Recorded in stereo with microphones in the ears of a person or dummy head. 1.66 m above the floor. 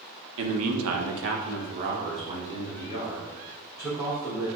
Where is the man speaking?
70° right (ahead or behind), 0.8 m; by 4.5 s 10° right (ahead or behind), 2.5 m.